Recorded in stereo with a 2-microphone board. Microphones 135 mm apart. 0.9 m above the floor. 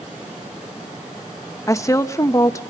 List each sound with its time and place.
1.7 s a woman speaking: 25° left (ahead or behind), 0.9 m